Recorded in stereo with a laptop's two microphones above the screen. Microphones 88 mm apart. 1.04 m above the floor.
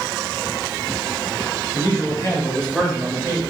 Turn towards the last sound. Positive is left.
turn(degrees=-35)  # may be behind; listen again after turning